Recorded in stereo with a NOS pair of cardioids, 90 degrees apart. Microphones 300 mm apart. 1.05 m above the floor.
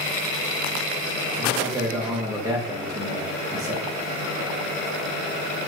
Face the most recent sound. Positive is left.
turn(degrees=-10)